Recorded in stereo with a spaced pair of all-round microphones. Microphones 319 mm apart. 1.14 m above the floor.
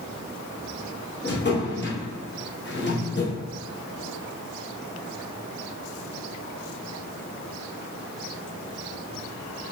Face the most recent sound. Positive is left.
turn(degrees=35)  # may be behind; listen again after turning